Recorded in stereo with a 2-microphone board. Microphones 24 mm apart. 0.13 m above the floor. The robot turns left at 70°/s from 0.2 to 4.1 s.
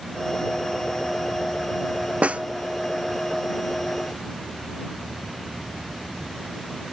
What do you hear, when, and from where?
2.2 s a snare drum: 70° right (ahead or behind); by 2.4 s 80° right